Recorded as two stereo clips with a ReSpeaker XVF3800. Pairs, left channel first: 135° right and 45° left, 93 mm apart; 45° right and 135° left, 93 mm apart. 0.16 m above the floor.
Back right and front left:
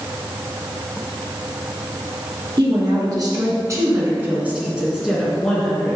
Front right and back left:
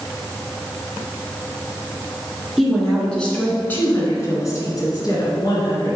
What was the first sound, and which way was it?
A woman speaking, 45° left.